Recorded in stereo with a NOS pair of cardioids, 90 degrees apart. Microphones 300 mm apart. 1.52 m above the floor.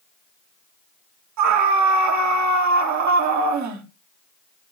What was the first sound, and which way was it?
A scream, 65° right.